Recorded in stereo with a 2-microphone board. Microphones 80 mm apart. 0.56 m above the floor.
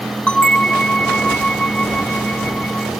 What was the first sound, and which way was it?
A bell, 10° left (ahead or behind).